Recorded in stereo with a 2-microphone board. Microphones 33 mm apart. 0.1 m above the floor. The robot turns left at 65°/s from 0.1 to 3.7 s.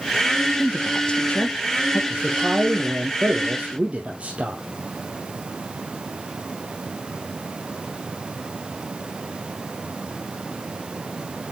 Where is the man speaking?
25° right, 2 m; by 4.6 s 130° right, 2 m.